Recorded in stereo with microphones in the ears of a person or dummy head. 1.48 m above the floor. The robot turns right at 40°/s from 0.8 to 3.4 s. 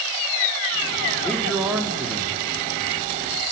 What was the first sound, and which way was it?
A man speaking, 170° left.